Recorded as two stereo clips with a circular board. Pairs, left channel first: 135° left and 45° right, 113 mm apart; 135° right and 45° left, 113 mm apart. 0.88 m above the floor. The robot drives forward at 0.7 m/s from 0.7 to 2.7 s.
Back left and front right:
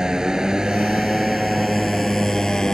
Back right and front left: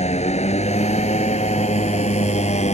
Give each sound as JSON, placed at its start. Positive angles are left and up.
{"t": 0.0, "sound": "a motorcycle", "azimuth_deg": -130}